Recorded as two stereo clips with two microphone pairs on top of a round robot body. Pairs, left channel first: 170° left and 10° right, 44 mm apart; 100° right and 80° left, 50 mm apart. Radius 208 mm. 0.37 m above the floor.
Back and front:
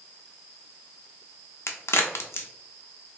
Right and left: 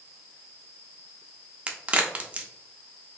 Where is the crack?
145° left, 0.5 m.